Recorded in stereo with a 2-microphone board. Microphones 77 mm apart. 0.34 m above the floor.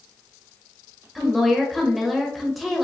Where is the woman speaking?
Centre (ahead or behind), 1.1 m.